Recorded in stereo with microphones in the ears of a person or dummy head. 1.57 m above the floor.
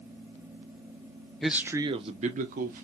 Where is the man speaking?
5° left (ahead or behind), 0.6 m; by 2.9 s 45° right (ahead or behind), 1.2 m.